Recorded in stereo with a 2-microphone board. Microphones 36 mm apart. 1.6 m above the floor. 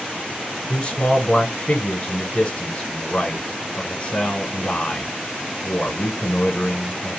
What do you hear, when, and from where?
0.7 s a man speaking: 40° left (ahead or behind), 1.0 m